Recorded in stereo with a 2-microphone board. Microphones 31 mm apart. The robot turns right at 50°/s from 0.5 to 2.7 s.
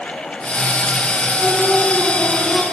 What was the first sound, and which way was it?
Singing, 130° left.